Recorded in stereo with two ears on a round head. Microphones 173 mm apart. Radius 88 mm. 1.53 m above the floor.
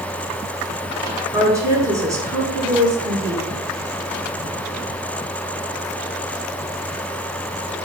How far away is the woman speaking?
About 3 m.